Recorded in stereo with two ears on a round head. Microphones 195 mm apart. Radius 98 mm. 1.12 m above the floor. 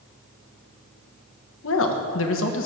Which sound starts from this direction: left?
A woman speaking, at 1.6 s.